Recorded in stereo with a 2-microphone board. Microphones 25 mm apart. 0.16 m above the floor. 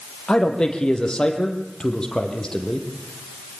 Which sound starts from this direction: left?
A man speaking, at 0.3 s.